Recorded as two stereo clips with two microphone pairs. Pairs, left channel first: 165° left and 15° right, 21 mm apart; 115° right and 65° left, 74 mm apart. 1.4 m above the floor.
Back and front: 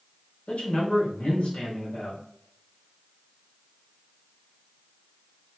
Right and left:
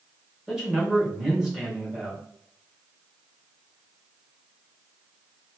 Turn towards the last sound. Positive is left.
turn(degrees=145)